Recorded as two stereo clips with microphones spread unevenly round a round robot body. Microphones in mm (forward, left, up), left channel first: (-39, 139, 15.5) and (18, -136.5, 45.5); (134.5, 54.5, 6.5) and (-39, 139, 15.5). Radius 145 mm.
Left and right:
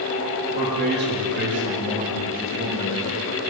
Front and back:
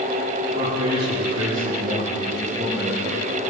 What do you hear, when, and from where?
0.5 s a man speaking: 135° right, 8 m; by 3.2 s 120° right, 10.5 m